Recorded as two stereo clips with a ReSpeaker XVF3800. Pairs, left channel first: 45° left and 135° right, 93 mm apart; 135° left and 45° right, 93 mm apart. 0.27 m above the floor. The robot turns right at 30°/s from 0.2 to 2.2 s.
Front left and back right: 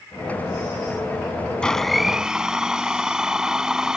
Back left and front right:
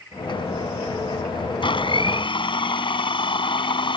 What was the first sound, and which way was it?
A blender, 125° left.